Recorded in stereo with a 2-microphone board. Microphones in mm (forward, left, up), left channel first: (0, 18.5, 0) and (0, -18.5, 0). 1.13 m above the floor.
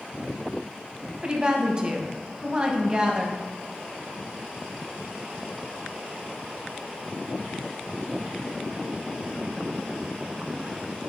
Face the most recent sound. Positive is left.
turn(degrees=-25)  # may be behind; listen again after turning